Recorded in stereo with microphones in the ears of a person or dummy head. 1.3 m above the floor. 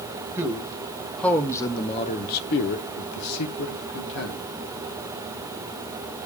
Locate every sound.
0.4 s a man speaking: 20° right (ahead or behind), 1.5 m; by 4.4 s 80° left, 1.8 m